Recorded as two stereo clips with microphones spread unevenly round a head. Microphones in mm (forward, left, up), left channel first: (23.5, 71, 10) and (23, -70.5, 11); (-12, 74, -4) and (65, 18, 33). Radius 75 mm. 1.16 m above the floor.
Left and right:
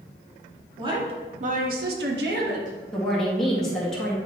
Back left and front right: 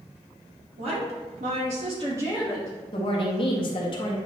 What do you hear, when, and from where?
0.8 s a woman speaking: 35° right, 2 m; by 2.8 s 135° right, 1.7 m
2.9 s a woman speaking: 175° left, 1.7 m